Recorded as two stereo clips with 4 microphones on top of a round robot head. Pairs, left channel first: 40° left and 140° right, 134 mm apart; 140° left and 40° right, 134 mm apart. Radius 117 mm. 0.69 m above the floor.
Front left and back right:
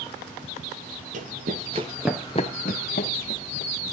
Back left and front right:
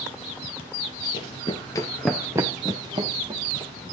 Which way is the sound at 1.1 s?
165° right.